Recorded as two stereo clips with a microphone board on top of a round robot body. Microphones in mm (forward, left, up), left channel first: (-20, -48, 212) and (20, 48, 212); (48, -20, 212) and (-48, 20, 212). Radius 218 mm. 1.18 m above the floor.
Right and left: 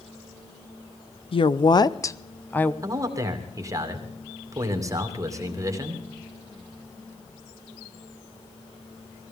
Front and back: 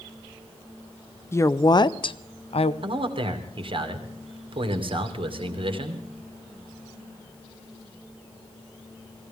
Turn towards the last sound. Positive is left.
turn(degrees=125)